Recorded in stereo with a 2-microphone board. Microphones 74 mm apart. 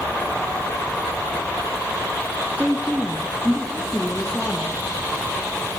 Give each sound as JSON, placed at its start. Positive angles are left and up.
{"t": 2.6, "sound": "a woman speaking", "side_deg": -20, "distance_m": 3.0}